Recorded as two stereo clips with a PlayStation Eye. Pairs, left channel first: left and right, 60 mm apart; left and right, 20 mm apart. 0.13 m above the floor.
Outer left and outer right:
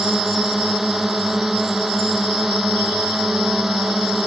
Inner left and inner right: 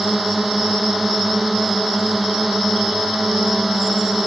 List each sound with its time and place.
0.0 s a drone: 5° right (ahead or behind)